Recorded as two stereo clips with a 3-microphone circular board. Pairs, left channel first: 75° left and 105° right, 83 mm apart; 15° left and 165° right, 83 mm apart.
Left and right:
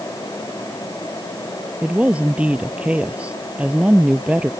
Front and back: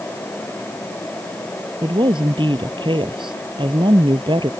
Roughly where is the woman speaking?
Behind.